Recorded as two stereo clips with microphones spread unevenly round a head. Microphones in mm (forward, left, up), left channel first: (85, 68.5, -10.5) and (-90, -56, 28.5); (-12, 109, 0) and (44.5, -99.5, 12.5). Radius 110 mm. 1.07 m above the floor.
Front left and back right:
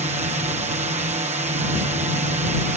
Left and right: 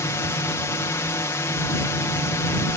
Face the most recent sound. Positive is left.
turn(degrees=170)